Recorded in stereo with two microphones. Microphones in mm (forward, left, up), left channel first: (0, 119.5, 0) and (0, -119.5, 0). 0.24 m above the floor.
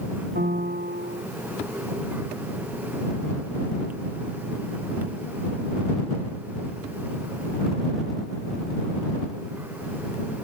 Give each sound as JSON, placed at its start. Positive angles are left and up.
{"t": 0.3, "sound": "a piano", "side_deg": -40}